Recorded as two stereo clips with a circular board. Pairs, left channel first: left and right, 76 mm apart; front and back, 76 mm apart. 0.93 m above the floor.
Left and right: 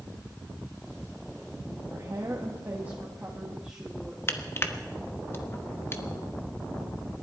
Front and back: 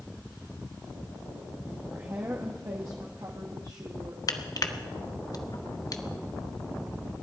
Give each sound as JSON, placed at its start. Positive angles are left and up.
{"t": 1.9, "sound": "a woman speaking", "azimuth_deg": -130, "distance_m": 1.7}
{"t": 4.3, "sound": "crushing", "azimuth_deg": 35, "distance_m": 1.0}